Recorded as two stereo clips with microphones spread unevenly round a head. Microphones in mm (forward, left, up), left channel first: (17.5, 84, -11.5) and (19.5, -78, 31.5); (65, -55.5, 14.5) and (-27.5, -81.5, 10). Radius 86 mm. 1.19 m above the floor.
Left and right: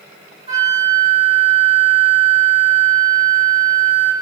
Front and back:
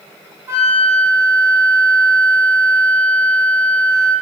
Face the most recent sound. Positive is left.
turn(degrees=130)